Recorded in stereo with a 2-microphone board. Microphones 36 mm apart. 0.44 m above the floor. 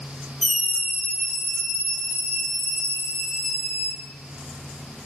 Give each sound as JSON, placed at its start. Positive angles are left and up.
{"t": 0.4, "sound": "a scream", "side_deg": 5, "distance_m": 4.5}